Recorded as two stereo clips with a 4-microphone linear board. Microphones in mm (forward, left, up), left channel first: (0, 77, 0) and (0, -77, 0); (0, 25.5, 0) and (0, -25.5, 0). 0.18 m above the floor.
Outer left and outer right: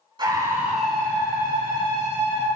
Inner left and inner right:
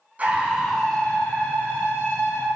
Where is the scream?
30° right (ahead or behind), 1.3 m; by 2.5 s 50° left (ahead or behind), 2.5 m.